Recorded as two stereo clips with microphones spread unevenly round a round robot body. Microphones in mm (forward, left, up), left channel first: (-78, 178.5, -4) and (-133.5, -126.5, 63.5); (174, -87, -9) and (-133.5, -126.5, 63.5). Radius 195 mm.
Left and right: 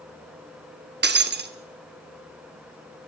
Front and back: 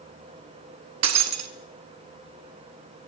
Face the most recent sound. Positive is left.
turn(degrees=-150)